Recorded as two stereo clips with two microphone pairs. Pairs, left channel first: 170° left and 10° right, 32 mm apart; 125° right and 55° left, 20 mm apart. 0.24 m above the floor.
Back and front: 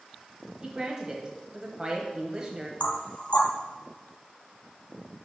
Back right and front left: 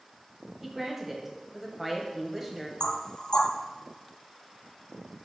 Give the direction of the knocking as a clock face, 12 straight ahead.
6 o'clock.